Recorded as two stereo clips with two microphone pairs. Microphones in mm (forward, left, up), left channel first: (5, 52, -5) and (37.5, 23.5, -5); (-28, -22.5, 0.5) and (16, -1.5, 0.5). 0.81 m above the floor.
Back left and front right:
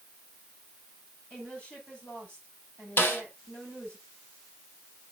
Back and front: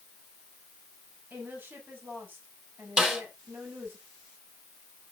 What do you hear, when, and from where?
1.3 s a woman speaking: 70° left, 6.5 m
3.0 s a snare drum: 100° left, 4.5 m